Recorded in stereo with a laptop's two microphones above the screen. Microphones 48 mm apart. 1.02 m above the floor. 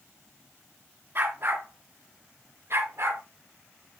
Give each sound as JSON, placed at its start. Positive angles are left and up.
{"t": 1.1, "sound": "a dog barking", "side_deg": -50, "distance_m": 3.0}